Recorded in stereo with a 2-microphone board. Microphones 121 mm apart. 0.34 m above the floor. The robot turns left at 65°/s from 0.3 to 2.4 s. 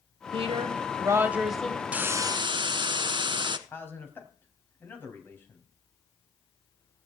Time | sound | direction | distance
0.3 | a woman speaking | 100° right | 1.5 m
1.9 | a hiss | 10° right | 0.9 m
3.7 | a man speaking | 20° left (ahead or behind) | 3 m